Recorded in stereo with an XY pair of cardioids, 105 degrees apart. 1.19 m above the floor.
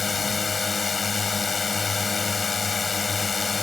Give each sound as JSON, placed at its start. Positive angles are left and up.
{"t": 0.0, "sound": "a drone", "azimuth_deg": 30}